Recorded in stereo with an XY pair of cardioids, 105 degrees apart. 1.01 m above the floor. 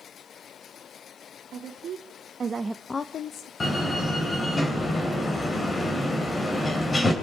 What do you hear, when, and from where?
1.5 s a woman speaking: 65° right, 2 m; by 3.5 s 75° left, 1.1 m
3.6 s a door slam: 25° left, 3.5 m